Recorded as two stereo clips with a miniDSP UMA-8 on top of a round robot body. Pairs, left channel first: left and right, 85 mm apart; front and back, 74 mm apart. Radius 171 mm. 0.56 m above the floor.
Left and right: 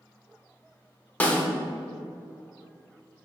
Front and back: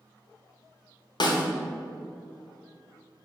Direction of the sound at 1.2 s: 15° left.